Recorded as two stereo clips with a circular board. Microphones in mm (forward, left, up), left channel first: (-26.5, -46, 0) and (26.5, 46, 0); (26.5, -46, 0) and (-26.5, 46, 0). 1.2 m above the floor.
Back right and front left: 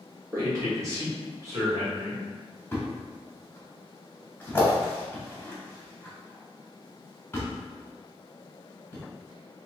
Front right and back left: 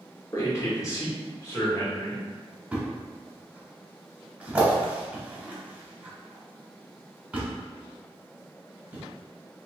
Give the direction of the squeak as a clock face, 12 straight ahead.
No squeak in this recording.